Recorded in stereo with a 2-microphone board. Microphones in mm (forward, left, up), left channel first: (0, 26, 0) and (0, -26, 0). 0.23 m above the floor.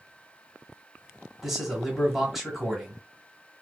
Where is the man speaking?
5° right (ahead or behind), 1.6 m.